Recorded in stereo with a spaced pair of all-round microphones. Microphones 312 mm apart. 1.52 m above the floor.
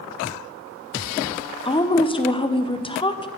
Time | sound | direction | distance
1.6 | a woman speaking | 15° left (ahead or behind) | 0.6 m